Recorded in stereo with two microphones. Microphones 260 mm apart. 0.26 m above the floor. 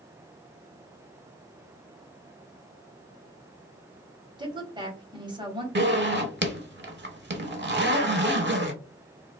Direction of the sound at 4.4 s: 15° right (ahead or behind).